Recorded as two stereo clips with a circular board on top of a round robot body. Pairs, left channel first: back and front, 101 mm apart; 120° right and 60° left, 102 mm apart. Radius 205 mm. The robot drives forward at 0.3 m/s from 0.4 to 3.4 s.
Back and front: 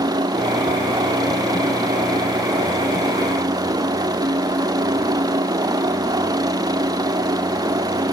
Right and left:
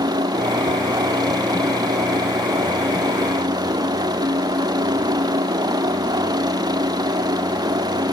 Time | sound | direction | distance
0.0 | a helicopter | 30° left | ?